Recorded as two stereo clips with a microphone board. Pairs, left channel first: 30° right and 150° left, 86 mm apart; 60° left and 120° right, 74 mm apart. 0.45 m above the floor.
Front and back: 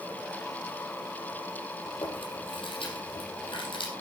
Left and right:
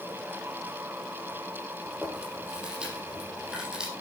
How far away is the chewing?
About 5 m.